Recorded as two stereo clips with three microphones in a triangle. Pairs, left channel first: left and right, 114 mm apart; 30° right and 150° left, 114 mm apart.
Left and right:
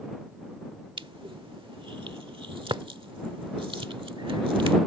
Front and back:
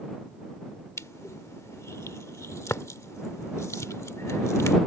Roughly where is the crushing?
Right.